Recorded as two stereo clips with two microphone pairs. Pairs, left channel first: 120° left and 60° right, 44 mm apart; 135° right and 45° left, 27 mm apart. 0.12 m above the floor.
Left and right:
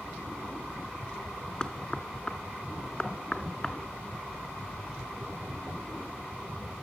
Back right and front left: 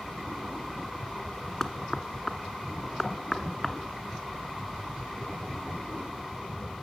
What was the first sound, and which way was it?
Knocking, 160° left.